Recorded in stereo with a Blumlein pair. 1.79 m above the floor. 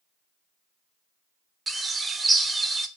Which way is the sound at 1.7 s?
10° right.